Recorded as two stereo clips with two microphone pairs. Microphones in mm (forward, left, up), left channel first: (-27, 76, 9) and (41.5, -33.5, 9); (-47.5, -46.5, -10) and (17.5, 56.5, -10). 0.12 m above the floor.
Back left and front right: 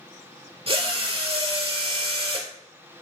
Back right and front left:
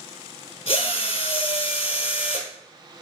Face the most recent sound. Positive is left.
turn(degrees=-95)